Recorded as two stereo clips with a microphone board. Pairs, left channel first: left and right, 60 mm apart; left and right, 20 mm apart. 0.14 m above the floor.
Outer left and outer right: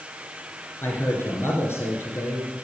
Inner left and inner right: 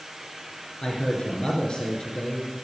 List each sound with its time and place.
0.8 s a man speaking: 45° left (ahead or behind), 2.5 m